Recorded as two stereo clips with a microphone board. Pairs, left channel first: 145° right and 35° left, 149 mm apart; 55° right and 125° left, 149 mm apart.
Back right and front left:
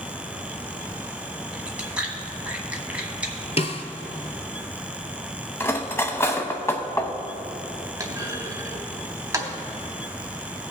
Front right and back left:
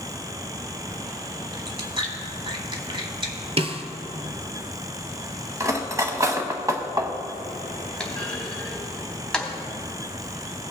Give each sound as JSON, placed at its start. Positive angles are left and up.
{"t": 1.5, "sound": "chewing", "azimuth_deg": 110, "distance_m": 1.2}
{"t": 3.6, "sound": "a snare drum", "azimuth_deg": 170, "distance_m": 0.7}
{"t": 5.6, "sound": "cutlery clinking", "azimuth_deg": 165, "distance_m": 0.8}
{"t": 8.0, "sound": "a clunk", "azimuth_deg": 20, "distance_m": 1.1}